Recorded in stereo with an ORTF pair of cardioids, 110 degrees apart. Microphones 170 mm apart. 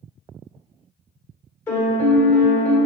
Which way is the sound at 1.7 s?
15° left.